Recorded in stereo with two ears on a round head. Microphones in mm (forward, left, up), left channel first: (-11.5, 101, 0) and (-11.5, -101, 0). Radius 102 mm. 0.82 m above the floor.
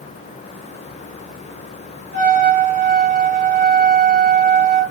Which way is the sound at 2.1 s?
35° right (ahead or behind).